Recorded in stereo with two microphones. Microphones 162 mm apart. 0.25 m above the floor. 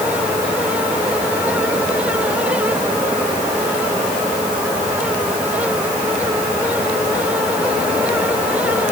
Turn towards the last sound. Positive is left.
No sound to turn to.